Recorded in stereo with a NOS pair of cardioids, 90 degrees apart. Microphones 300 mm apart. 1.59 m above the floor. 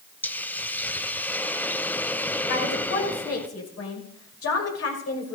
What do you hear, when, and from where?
0.2 s a hiss: 5° left, 0.9 m
2.5 s a woman speaking: 50° left, 6 m